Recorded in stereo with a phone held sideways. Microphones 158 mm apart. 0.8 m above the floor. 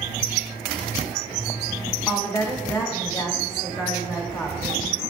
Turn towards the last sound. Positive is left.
turn(degrees=20)  # may be behind; listen again after turning